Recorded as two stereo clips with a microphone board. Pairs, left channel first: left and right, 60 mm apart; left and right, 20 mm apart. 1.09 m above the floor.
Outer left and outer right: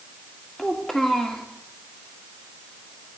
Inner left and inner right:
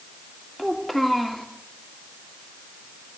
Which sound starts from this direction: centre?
A child speaking, at 0.6 s.